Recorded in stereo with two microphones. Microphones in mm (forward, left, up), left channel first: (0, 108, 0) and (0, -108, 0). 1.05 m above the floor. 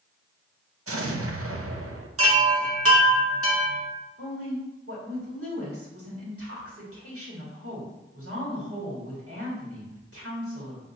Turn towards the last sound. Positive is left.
turn(degrees=-80)